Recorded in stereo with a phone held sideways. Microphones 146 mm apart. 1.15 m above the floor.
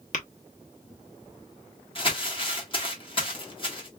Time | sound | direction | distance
0.1 | tapping | 60° left (ahead or behind) | 1.0 m
1.9 | crumpling | 35° left (ahead or behind) | 1.5 m